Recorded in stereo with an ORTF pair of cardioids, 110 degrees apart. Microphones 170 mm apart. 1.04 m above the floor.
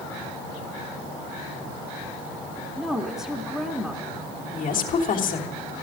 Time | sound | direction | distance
2.8 | a woman speaking | straight ahead | 1.7 m
4.5 | a woman speaking | 55° left | 3 m